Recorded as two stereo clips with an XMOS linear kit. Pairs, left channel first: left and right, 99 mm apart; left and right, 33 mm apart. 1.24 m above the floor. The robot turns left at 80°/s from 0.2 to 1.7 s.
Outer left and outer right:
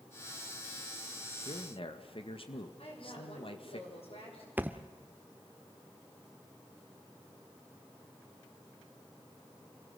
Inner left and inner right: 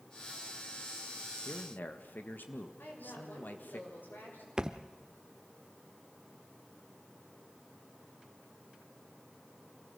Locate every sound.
1.4 s a man speaking: 70° left (ahead or behind), 1.8 m; by 3.8 s 60° left (ahead or behind), 1.8 m
2.8 s a woman speaking: 70° left (ahead or behind), 6.5 m
4.6 s a thud: 20° right (ahead or behind), 0.9 m